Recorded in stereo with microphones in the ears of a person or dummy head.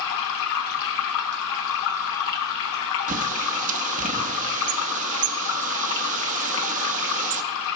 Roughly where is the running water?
Left.